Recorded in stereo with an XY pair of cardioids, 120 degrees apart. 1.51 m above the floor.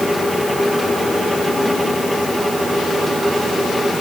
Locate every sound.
0.0 s a fan: 5° left